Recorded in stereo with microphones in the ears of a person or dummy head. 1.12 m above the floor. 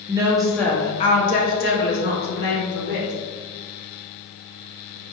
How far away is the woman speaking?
About 0.5 m.